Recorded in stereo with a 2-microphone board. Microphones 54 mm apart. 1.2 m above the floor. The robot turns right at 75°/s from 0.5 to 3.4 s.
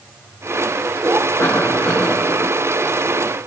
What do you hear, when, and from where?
1.4 s a cough: 120° left, 5 m; by 2.5 s 160° right, 5 m